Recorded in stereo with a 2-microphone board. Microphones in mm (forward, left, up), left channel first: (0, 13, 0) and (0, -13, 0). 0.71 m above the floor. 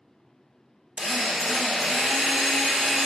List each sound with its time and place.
1.0 s a drill: 55° right (ahead or behind), 1.6 m